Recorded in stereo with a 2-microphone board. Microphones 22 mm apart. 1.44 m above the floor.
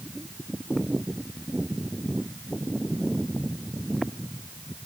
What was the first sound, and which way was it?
Only background noise.